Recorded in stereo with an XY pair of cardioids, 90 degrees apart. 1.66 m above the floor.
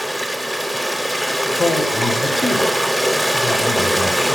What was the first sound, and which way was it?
Running water, 10° left.